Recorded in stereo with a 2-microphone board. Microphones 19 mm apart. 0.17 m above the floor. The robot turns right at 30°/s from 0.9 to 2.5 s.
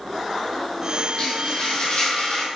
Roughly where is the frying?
Ahead left.